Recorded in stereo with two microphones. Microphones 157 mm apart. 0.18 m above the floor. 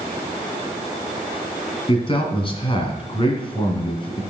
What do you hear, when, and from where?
1.9 s a man speaking: 35° left (ahead or behind), 2.0 m